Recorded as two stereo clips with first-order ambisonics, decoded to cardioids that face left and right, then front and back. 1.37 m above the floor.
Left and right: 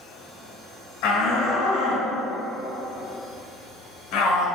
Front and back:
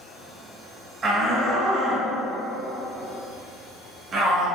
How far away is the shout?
About 1.2 m.